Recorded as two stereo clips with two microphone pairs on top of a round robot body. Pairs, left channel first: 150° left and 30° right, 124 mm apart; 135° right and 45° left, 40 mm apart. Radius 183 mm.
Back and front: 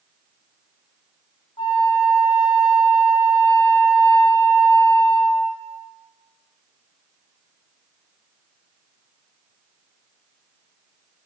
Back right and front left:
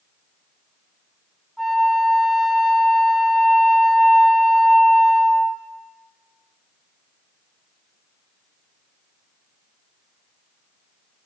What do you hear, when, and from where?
1.6 s a flute: 140° left, 0.7 m